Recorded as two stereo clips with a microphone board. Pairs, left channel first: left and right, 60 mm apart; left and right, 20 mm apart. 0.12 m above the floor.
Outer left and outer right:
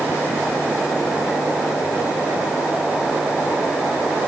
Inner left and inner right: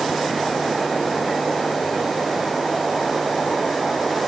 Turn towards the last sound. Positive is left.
No sound to turn to.